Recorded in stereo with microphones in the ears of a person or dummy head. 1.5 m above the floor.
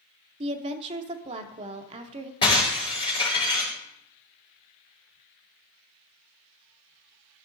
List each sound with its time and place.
0.4 s a woman speaking: 35° right (ahead or behind), 0.8 m
2.4 s breaking glass: 30° left (ahead or behind), 5 m